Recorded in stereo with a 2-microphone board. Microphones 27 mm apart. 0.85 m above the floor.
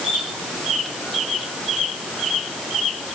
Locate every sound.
Only background noise.